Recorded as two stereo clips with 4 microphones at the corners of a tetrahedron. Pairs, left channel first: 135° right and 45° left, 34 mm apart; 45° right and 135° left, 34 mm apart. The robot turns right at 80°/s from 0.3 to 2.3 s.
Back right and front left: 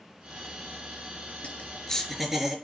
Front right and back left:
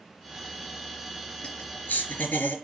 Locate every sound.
1.4 s laughter: 100° right, 4 m; by 2.5 s 30° right, 4 m